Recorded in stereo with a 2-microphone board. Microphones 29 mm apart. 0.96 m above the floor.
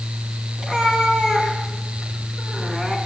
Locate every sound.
0.6 s a cat meowing: 30° right (ahead or behind), 5 m